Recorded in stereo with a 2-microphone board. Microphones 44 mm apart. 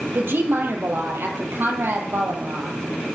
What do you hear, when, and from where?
0.1 s a woman speaking: 60° right (ahead or behind), 2.5 m